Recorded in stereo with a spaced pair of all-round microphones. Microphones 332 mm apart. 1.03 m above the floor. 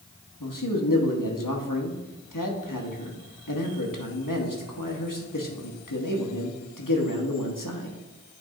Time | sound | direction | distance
0.4 | a man speaking | 80° left | 1.2 m